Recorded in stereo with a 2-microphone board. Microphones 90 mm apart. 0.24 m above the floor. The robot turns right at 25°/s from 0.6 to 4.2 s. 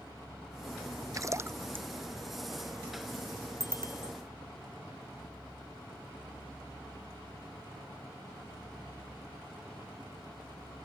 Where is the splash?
40° right (ahead or behind); by 1.9 s 20° right (ahead or behind).